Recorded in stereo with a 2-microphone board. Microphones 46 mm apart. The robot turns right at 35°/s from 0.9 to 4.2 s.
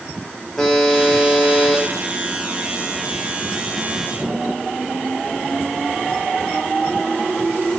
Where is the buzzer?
10° left, 1.5 m; by 1.8 s 45° left, 1.5 m.